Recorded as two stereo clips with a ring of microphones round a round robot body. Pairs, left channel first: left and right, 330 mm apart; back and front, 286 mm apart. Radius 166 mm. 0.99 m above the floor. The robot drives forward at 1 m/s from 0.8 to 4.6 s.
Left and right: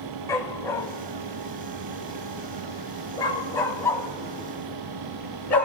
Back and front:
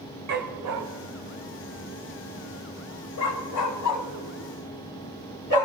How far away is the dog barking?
About 1.5 m.